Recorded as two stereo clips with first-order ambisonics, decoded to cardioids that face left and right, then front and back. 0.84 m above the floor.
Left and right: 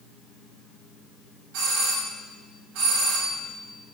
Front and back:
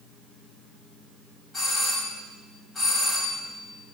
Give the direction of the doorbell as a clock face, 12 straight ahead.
3 o'clock.